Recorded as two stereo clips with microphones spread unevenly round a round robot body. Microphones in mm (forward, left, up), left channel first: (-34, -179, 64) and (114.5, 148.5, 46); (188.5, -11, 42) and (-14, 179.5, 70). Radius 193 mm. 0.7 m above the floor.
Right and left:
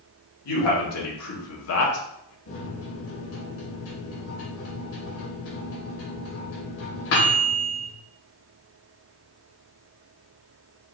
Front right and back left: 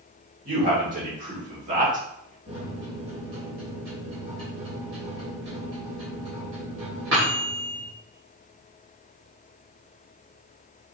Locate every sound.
0.5 s a man speaking: 160° right, 2.5 m
2.5 s a microwave: 165° right, 3 m